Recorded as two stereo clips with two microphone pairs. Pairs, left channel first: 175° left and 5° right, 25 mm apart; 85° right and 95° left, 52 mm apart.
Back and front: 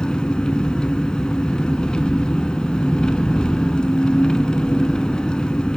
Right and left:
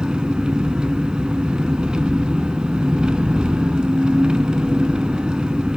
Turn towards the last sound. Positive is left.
turn(degrees=155)